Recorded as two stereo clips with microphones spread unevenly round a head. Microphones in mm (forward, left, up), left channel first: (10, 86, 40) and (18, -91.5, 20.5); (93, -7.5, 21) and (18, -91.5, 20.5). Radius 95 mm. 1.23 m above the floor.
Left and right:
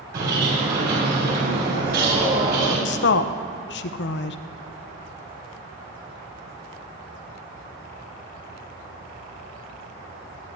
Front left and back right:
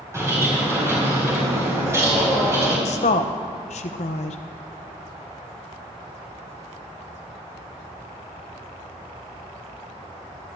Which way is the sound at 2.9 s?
75° left.